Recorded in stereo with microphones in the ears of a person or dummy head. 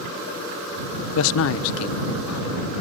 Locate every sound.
1.1 s a man speaking: 70° left (ahead or behind)